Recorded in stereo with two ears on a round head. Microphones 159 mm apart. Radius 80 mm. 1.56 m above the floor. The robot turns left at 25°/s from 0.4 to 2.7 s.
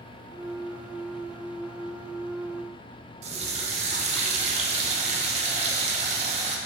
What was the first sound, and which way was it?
A running tap, 35° right (ahead or behind).